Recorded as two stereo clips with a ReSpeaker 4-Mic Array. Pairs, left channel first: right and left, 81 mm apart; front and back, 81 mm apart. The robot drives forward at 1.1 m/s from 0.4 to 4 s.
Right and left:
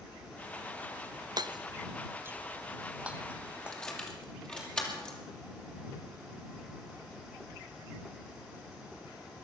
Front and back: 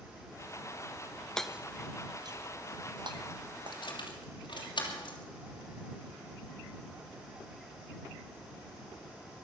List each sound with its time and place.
1.4 s hammering: 80° left, 0.6 m; by 4.7 s 170° left, 3 m
3.7 s keys jangling: 10° right, 3 m